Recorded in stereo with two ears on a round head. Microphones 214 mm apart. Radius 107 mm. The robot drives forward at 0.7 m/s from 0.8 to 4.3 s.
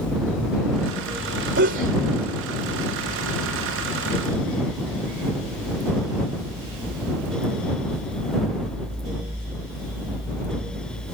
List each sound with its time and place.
1.6 s a sneeze: 50° right (ahead or behind); by 2.0 s 55° right (ahead or behind)